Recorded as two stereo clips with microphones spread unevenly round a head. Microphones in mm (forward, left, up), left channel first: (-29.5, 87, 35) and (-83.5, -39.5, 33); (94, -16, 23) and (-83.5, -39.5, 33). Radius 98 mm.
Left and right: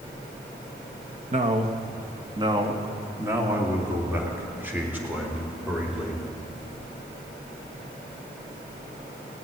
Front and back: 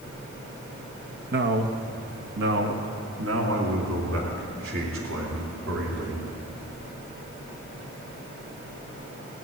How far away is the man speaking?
About 1.3 m.